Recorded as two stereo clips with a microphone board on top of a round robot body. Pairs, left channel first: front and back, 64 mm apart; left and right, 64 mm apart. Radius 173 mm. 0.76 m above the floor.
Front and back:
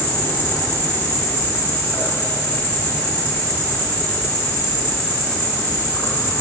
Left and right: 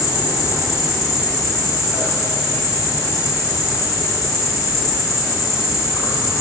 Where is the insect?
65° left, 0.9 m.